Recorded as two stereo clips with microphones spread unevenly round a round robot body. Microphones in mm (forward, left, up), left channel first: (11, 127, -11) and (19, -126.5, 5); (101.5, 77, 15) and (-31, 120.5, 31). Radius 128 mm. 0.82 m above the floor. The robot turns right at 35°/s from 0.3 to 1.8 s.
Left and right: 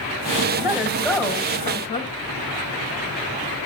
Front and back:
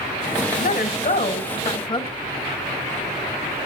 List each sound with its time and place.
0.6 s a woman speaking: 20° right, 2 m; by 2.1 s 25° left, 2 m